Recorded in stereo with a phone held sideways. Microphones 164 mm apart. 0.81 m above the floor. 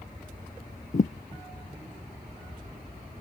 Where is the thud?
50° left (ahead or behind).